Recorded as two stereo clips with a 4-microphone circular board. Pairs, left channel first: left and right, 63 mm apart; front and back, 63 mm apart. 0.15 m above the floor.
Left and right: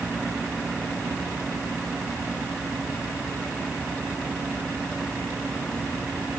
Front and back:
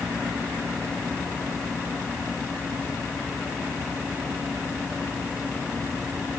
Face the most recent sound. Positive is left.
No sound to turn to.